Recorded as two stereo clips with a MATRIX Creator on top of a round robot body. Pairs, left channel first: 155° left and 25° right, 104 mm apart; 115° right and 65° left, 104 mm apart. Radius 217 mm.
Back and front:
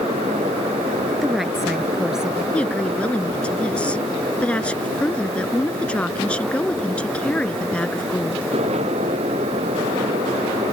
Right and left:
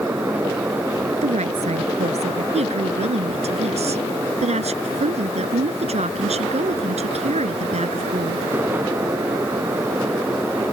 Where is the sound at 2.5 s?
80° left.